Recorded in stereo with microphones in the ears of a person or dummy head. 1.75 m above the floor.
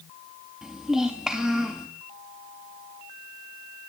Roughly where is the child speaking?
Centre.